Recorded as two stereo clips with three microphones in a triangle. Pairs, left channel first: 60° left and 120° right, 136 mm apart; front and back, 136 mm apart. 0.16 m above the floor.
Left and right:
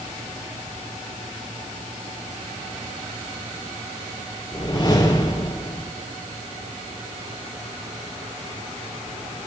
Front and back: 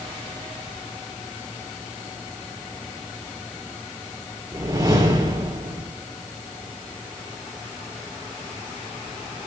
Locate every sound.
4.5 s a whoosh: 120° left, 3 m